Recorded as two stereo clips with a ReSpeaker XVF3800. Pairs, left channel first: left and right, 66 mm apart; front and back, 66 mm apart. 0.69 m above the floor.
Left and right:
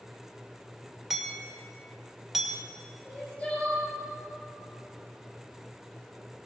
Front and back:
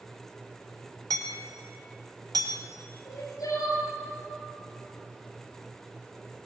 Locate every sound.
1.1 s hammering: 175° right, 2 m
3.0 s crying: 25° left, 7 m